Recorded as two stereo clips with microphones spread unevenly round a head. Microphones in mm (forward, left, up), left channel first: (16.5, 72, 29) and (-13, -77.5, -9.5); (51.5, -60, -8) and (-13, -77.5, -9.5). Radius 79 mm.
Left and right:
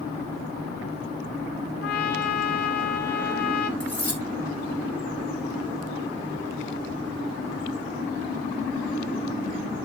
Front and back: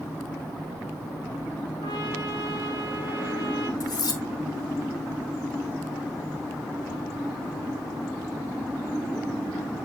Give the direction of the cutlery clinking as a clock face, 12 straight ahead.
12 o'clock.